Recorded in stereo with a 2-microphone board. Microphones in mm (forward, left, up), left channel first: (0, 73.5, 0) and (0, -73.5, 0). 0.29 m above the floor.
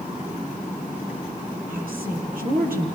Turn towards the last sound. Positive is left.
turn(degrees=-75)  # may be behind; listen again after turning